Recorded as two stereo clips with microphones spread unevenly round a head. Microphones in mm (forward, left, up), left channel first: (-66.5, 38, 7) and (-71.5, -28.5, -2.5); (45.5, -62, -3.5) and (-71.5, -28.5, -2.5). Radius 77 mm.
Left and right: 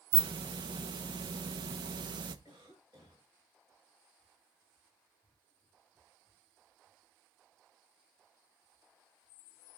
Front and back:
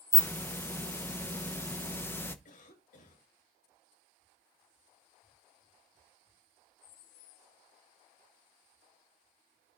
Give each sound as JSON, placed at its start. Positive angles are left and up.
{"t": 0.1, "sound": "a hiss", "azimuth_deg": -85, "distance_m": 1.0}
{"t": 2.5, "sound": "a cough", "azimuth_deg": -25, "distance_m": 9.0}